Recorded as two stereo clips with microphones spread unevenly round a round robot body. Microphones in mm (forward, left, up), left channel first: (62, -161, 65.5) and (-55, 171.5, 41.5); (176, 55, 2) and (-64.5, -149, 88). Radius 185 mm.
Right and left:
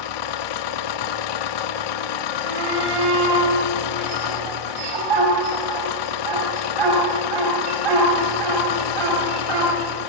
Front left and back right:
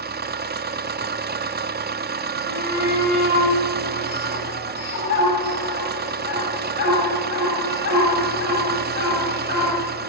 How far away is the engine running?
About 1.0 m.